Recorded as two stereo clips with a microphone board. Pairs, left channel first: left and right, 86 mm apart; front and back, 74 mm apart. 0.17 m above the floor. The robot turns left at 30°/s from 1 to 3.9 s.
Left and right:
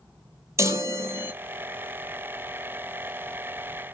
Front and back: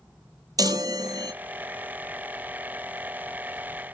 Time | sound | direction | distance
0.6 | a chime | 145° right | 0.7 m